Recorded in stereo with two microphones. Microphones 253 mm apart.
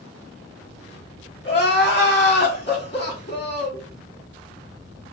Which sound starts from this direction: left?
Crying, at 1.4 s.